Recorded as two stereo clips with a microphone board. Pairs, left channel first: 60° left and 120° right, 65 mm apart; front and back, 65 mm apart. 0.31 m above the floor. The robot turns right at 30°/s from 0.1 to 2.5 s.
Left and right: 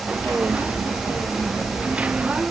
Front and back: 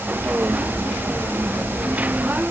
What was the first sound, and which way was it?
Only background noise.